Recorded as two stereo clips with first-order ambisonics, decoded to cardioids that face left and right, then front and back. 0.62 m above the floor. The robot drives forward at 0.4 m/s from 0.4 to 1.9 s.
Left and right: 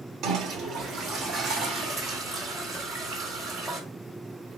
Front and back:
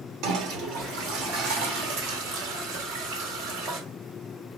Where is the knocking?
No knocking in this recording.